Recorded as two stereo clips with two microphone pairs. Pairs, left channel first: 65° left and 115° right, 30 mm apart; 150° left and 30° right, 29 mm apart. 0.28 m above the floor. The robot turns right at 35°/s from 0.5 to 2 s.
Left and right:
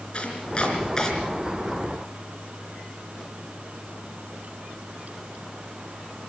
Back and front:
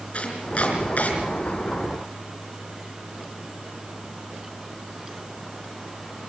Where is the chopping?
115° left, 4.5 m; by 1.1 s 135° left, 4.5 m.